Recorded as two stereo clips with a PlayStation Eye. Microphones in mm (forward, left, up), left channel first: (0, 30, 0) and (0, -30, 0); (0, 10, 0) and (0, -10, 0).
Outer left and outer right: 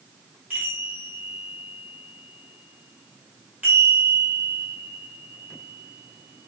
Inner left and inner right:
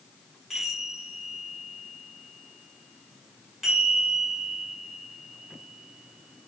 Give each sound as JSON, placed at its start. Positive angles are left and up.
{"t": 0.5, "sound": "a chime", "side_deg": -25, "distance_m": 1.5}